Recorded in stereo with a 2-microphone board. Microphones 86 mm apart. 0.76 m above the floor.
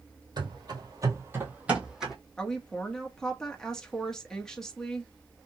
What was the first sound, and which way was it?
Running footsteps, 55° right (ahead or behind).